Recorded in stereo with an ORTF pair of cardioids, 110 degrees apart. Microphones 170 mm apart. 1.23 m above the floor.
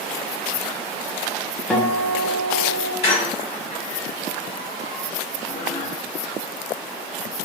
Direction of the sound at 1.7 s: 5° left.